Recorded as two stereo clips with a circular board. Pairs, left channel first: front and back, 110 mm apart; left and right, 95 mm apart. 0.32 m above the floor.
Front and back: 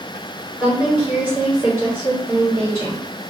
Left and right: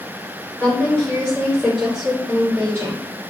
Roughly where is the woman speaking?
Left.